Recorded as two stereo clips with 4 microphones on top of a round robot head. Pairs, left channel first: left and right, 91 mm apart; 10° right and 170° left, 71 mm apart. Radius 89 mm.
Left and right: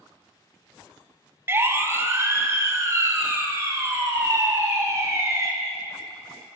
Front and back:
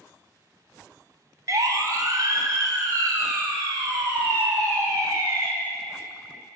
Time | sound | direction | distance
1.5 | a siren | 150° right | 2 m